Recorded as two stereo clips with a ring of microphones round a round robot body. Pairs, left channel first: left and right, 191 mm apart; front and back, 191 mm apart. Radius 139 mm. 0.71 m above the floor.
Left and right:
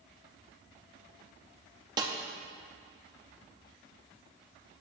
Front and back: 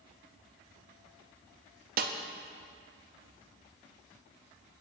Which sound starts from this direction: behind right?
A snare drum, at 2.0 s.